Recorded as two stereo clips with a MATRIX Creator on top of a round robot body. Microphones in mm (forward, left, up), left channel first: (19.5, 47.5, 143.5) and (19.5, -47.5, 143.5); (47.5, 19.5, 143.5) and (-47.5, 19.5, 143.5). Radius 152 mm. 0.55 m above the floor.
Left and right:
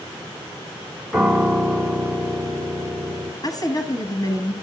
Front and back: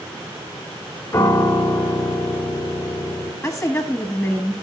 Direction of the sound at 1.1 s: 10° right.